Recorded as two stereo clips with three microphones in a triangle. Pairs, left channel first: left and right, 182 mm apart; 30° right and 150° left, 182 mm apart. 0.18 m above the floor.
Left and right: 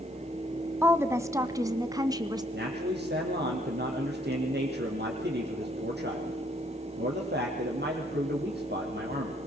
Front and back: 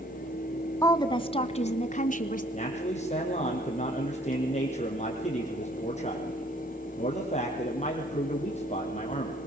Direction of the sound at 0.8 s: 40° right.